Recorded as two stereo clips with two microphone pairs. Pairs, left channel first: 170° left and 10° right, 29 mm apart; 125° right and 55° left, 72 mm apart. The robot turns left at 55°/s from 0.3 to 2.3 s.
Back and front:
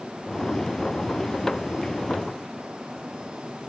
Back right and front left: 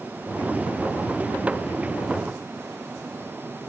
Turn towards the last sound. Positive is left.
No sound to turn to.